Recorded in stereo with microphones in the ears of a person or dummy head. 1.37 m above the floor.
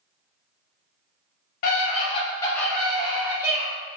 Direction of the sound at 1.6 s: 50° left (ahead or behind).